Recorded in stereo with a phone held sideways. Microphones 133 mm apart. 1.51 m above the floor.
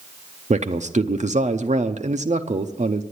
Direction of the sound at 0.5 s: 65° right (ahead or behind).